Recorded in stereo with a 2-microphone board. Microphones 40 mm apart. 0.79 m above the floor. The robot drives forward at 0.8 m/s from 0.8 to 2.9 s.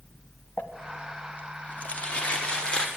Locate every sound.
0.6 s crumpling: 55° left (ahead or behind), 1.0 m; by 2.9 s 20° left (ahead or behind), 2 m